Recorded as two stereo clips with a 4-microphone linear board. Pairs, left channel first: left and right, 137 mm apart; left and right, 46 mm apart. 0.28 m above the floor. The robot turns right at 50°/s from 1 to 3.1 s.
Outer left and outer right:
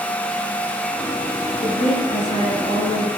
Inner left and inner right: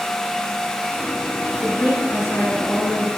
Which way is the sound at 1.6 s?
70° left.